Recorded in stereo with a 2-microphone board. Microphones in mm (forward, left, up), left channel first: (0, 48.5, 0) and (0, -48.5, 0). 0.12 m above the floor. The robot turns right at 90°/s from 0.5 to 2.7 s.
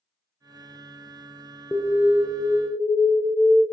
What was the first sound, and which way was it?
An alarm, 10° left (ahead or behind).